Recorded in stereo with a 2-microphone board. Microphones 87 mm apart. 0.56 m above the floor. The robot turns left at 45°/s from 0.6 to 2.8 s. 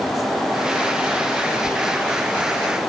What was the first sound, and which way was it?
Knocking, 75° right (ahead or behind).